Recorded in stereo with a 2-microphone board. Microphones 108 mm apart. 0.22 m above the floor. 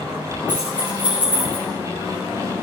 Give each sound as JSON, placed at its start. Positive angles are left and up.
{"t": 0.5, "sound": "keys jangling", "side_deg": -10, "distance_m": 9.0}